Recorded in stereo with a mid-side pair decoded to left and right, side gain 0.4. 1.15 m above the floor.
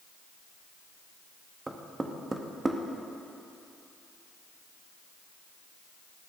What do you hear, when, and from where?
1.7 s knocking: 25° right, 0.9 m